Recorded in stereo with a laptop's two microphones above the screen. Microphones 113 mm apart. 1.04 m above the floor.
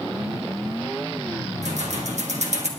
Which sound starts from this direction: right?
Keys jangling, at 1.6 s.